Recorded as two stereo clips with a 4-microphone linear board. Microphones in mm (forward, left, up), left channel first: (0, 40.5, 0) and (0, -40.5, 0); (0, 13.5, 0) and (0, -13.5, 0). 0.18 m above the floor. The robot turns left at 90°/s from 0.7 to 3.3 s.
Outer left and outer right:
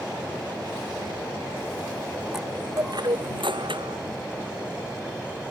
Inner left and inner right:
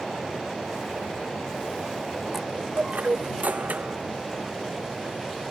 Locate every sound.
2.3 s a chime: 5° right; by 4.0 s 90° right